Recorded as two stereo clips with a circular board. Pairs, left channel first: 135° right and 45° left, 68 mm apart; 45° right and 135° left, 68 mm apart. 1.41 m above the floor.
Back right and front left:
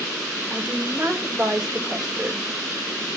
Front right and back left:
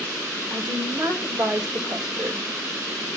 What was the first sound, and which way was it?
A woman speaking, 125° left.